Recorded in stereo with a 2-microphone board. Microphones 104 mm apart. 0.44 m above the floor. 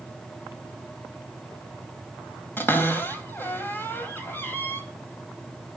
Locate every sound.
2.6 s a cupboard door: 20° left (ahead or behind), 3 m